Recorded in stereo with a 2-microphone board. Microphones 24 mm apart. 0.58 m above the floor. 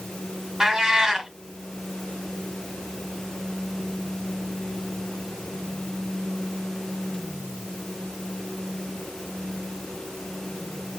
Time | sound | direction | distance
0.6 | a cat meowing | 20° right (ahead or behind) | 1.5 m